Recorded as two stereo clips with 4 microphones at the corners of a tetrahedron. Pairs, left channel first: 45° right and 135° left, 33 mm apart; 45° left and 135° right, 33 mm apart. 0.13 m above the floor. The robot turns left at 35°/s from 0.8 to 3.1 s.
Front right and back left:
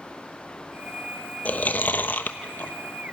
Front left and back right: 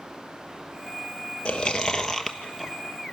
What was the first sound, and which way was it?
Chewing, 5° right.